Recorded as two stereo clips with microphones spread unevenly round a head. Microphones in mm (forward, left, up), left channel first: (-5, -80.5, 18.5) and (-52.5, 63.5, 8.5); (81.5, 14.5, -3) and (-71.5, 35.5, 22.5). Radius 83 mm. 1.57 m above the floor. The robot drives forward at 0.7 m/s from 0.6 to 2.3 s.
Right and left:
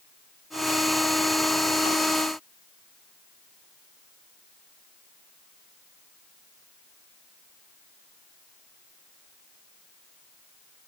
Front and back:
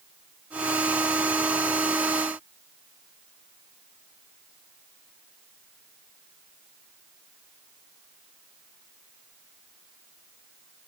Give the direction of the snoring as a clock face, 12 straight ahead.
I don't hear snoring.